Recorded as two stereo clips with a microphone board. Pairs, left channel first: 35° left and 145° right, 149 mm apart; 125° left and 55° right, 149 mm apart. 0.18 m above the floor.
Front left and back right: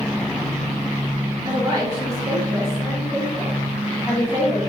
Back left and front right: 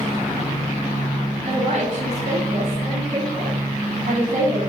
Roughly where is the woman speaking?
Right.